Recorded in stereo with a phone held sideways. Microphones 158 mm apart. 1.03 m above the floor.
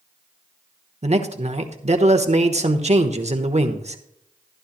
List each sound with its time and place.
1.0 s a man speaking: 45° right (ahead or behind), 1.1 m